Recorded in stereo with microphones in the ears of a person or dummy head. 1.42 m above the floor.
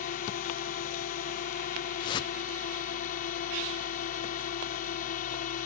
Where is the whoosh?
30° left (ahead or behind).